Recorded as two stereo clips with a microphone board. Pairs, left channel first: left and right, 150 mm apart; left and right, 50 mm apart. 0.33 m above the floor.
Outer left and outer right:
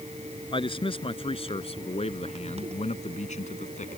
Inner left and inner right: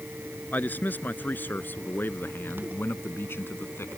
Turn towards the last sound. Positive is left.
turn(degrees=55)  # may be behind; listen again after turning